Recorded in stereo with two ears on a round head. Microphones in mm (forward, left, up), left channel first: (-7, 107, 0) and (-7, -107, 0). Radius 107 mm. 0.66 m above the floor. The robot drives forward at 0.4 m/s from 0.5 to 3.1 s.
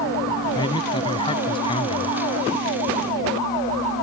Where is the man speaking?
20° left (ahead or behind).